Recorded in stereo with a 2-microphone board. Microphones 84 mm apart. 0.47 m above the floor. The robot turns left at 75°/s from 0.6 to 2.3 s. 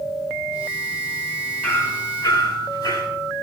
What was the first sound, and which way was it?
Hammering, 160° left.